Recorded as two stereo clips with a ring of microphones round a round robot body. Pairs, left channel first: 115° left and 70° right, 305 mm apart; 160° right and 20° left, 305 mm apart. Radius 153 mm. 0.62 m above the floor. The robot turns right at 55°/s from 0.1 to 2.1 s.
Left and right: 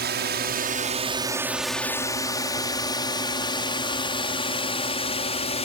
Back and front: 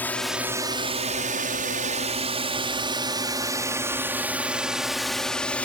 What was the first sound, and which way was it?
A drone, 80° right.